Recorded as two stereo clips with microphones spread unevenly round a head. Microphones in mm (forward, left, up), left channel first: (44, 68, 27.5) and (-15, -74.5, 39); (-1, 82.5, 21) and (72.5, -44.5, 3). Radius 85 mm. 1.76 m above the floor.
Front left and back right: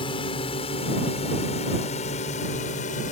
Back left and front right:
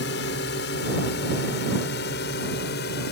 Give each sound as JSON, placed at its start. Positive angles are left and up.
{"t": 0.0, "sound": "a drone", "azimuth_deg": 130}